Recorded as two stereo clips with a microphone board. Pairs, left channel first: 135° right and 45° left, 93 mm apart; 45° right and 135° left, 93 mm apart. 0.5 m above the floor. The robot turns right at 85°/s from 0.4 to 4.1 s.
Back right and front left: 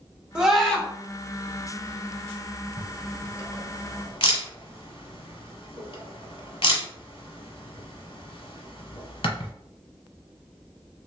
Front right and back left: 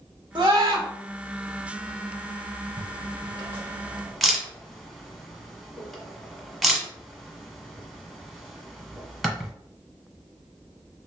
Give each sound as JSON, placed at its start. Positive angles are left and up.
{"t": 0.3, "sound": "a scream", "azimuth_deg": 120, "distance_m": 1.1}
{"t": 2.8, "sound": "a camera shutter", "azimuth_deg": 110, "distance_m": 1.0}